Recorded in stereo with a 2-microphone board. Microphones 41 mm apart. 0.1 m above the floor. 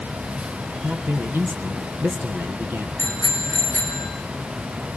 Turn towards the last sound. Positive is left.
turn(degrees=-70)  # may be behind; listen again after turning